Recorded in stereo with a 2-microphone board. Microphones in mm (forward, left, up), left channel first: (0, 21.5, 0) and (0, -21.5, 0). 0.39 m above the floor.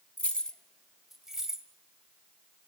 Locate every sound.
0.2 s keys jangling: 35° left (ahead or behind), 0.7 m; by 1.7 s 15° right (ahead or behind), 1.5 m